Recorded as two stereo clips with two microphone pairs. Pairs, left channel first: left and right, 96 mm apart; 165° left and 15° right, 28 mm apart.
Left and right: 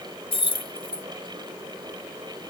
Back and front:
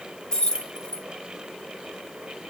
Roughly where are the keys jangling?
Left.